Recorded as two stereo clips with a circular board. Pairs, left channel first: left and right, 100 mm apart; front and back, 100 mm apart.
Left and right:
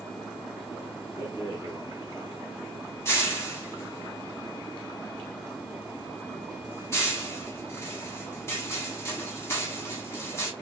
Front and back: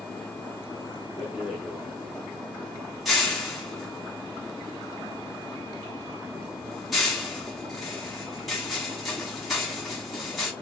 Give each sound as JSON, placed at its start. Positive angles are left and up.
{"t": 1.2, "sound": "a rattle", "azimuth_deg": 90, "distance_m": 1.4}